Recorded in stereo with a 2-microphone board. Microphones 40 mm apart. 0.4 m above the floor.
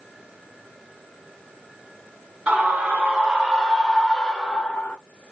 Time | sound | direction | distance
2.5 | a scream | 35° right (ahead or behind) | 2.0 m